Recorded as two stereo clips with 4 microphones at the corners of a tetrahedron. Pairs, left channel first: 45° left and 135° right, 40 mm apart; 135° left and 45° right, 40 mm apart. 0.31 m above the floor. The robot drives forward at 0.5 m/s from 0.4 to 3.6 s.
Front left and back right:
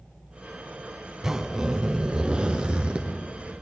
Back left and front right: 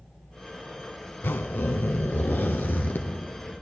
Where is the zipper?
150° left, 0.7 m; by 3.0 s 165° left, 1.6 m.